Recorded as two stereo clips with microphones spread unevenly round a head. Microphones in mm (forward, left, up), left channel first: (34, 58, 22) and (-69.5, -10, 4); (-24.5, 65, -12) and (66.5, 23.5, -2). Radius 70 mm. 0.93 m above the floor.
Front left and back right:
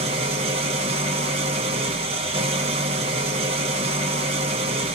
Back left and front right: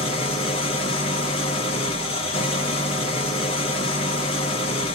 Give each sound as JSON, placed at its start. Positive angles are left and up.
{"t": 0.0, "sound": "an engine running", "azimuth_deg": 175, "distance_m": 0.9}